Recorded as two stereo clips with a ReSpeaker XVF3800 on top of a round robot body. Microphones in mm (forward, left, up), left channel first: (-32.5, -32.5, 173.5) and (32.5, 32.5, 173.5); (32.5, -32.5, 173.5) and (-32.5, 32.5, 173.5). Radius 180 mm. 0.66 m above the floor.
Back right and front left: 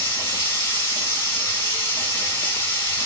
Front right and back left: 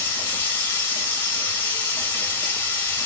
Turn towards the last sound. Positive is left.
turn(degrees=-105)